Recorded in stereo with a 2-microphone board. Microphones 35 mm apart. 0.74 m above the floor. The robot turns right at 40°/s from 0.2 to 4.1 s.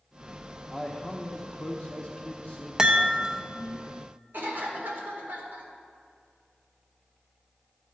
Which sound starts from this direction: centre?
A chime, at 2.8 s.